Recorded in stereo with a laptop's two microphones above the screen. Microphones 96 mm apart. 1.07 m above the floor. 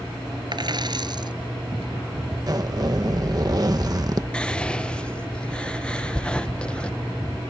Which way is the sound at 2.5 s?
40° right (ahead or behind).